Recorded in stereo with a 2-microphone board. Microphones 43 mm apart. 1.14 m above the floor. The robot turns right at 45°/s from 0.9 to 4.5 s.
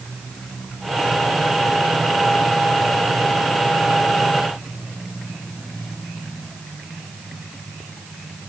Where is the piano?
I don't hear a piano.